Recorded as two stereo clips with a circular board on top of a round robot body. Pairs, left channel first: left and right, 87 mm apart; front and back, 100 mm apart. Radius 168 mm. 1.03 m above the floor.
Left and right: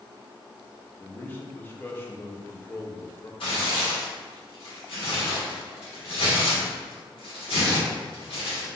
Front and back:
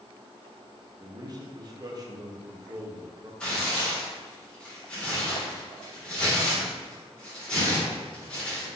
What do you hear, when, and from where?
1.0 s a man speaking: 150° left, 1.0 m
3.4 s tearing paper: 80° left, 1.5 m